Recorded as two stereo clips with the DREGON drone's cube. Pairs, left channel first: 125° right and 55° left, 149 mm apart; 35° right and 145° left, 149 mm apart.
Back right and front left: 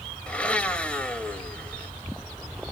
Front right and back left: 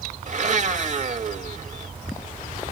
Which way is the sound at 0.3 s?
155° left.